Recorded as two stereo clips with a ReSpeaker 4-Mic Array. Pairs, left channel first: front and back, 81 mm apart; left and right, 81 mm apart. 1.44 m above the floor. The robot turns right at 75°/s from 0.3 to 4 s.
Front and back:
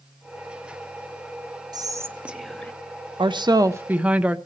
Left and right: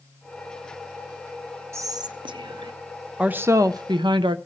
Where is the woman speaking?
165° right, 0.6 m; by 4.4 s 105° right, 0.6 m.